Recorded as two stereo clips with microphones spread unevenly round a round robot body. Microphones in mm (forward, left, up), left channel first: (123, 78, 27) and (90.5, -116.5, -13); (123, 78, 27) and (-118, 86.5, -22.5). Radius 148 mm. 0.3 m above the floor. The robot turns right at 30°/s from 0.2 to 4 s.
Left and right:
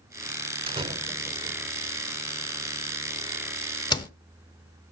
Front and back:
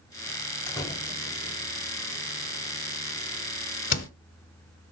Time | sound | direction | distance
0.7 | a door slam | 90° right | 1.0 m